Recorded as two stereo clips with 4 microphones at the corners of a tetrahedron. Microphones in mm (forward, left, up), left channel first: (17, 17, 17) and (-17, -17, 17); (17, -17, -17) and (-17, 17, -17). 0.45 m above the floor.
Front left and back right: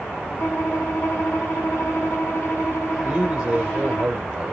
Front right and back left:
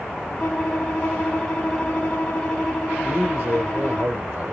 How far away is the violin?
About 3 m.